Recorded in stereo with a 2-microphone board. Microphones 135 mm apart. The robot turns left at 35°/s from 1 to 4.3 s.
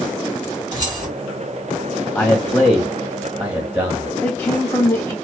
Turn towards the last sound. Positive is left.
turn(degrees=20)  # may be behind; listen again after turning